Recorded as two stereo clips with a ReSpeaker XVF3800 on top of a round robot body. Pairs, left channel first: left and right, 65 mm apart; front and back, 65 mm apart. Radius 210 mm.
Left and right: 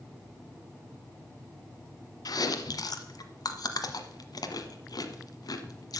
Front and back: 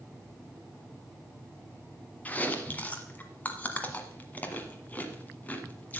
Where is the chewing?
65° left, 1.2 m.